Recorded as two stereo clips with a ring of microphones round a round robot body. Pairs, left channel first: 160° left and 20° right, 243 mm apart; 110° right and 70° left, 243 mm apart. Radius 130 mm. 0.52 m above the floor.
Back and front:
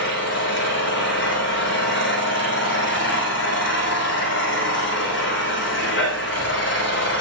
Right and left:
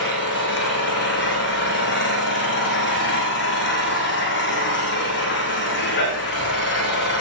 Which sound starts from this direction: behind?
An engine running, at 0.0 s.